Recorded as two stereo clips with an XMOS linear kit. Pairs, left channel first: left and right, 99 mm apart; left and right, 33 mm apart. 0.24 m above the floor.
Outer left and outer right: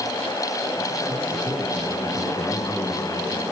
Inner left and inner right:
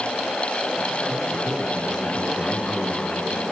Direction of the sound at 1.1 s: 5° left (ahead or behind).